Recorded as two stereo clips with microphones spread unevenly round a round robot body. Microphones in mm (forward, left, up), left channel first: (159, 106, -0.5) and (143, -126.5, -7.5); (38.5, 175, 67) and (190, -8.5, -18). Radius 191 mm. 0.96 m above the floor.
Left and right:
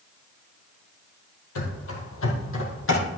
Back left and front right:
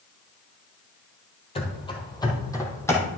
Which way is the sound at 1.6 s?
75° left.